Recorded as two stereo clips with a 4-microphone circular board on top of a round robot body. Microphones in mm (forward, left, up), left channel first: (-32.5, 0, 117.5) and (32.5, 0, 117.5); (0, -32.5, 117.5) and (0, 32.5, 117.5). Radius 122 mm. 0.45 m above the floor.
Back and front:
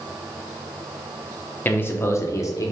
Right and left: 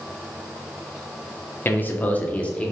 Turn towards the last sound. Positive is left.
turn(degrees=-165)